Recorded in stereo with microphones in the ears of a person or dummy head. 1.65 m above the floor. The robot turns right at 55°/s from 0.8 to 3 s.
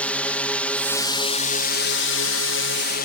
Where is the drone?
5° left; by 3.1 s 125° left.